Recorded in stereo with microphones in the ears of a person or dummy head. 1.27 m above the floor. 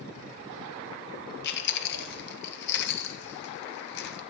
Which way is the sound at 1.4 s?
65° left (ahead or behind).